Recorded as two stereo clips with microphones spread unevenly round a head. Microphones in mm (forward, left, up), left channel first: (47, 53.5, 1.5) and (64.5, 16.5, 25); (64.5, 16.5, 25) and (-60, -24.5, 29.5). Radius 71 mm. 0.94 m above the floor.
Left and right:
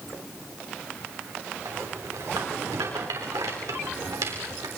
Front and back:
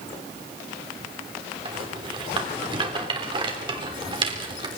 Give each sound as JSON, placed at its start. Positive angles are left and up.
{"t": 1.6, "sound": "a rattle", "azimuth_deg": -105, "distance_m": 3.0}